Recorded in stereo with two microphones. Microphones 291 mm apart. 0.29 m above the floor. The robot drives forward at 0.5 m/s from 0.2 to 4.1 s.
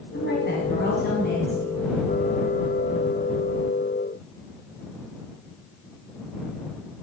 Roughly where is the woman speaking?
Left.